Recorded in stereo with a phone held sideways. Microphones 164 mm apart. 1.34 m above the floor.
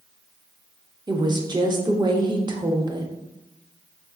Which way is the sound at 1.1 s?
25° right (ahead or behind).